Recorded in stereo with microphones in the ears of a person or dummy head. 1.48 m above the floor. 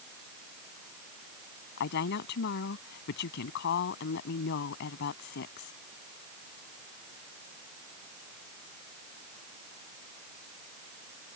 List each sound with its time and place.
1.8 s a woman speaking: 55° left (ahead or behind)